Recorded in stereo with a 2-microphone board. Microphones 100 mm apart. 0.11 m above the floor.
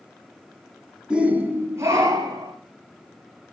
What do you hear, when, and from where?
1.1 s a shout: 10° right (ahead or behind), 1.6 m; by 2.5 s 40° right (ahead or behind), 3 m